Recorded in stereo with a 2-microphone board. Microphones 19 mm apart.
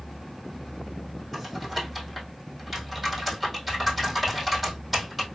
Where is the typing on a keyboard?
Centre (ahead or behind), 2.5 m.